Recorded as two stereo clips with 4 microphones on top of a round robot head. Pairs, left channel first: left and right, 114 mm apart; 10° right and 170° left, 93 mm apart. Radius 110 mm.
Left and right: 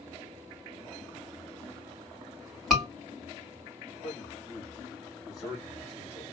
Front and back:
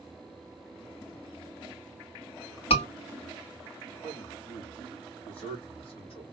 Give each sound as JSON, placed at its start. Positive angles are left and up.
{"t": 2.7, "sound": "a scream", "azimuth_deg": -5, "distance_m": 3.0}
{"t": 4.0, "sound": "a man speaking", "azimuth_deg": 0, "distance_m": 3.0}